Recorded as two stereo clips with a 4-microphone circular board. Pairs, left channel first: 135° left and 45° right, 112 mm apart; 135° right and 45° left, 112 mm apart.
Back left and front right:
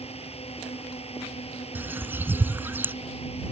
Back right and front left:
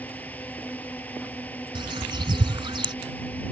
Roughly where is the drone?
Behind left.